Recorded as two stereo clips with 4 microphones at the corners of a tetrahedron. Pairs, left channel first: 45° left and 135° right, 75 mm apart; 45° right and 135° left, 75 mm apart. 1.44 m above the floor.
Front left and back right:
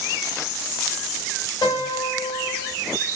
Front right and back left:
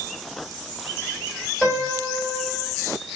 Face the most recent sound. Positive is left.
turn(degrees=50)